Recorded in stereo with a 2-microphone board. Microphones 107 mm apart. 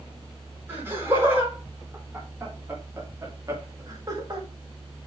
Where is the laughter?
20° right (ahead or behind), 4.5 m; by 4.5 s 40° right (ahead or behind), 1.9 m.